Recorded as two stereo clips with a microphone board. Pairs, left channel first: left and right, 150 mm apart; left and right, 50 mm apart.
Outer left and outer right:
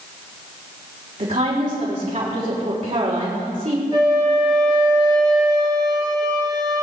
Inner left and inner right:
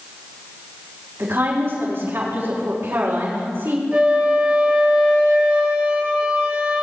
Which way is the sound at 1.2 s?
60° right (ahead or behind).